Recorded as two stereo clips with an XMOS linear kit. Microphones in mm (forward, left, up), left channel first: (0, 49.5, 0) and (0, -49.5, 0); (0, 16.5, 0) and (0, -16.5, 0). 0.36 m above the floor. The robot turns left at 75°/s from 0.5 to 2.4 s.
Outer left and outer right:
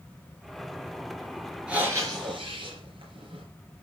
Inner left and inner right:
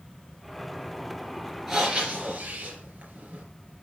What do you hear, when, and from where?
1.7 s breathing: 10° right, 4 m; by 3.4 s 65° right, 4 m